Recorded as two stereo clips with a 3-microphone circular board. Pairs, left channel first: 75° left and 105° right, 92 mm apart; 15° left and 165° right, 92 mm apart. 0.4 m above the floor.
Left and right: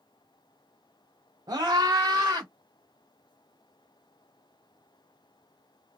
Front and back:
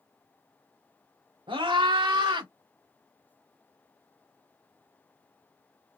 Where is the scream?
150° right, 3.5 m.